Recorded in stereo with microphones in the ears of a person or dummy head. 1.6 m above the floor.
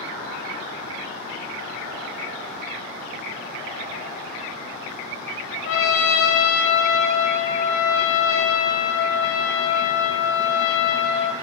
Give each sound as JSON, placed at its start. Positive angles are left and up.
{"t": 5.7, "sound": "a trumpet", "side_deg": 65, "distance_m": 1.1}